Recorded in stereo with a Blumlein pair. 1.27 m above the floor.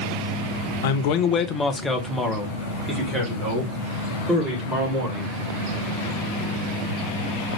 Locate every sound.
0.8 s a man speaking: 60° left, 0.6 m; by 5.4 s 25° right, 3.5 m